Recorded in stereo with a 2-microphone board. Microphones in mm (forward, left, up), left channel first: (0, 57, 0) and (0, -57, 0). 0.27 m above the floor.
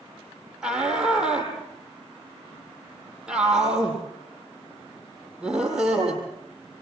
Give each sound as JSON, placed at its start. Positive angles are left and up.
{"t": 0.6, "sound": "a shout", "side_deg": -5, "distance_m": 8.5}